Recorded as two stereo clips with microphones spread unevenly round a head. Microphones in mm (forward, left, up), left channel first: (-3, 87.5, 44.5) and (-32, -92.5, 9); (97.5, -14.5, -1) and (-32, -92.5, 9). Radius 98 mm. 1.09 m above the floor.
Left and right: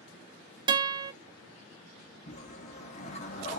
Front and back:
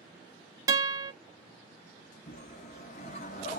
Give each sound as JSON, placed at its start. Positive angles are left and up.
{"t": 0.7, "sound": "a guitar", "azimuth_deg": -160, "distance_m": 0.6}
{"t": 2.3, "sound": "a whoosh", "azimuth_deg": 65, "distance_m": 0.7}